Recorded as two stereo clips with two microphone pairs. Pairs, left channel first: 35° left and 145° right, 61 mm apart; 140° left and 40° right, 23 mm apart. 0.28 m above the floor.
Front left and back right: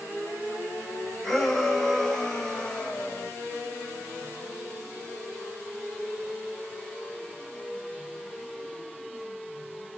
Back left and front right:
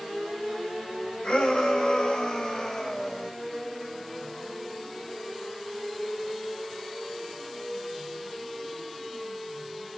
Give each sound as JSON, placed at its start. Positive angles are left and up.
{"t": 1.2, "sound": "a shout", "azimuth_deg": 125, "distance_m": 1.9}